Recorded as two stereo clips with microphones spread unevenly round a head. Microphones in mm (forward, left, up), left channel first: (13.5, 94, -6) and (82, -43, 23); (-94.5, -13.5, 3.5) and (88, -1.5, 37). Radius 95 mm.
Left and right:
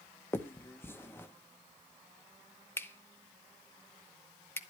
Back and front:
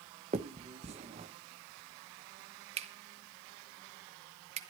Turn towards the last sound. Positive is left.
turn(degrees=35)